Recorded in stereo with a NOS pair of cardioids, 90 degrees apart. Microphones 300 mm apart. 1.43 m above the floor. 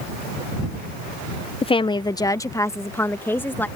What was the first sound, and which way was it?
A woman speaking, 20° left.